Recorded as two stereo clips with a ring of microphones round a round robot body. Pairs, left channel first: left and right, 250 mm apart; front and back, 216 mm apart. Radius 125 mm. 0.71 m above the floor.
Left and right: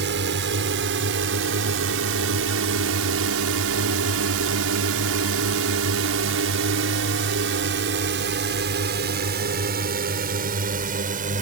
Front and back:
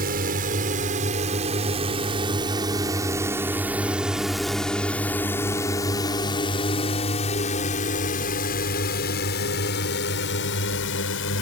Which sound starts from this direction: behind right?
A drone, at 0.0 s.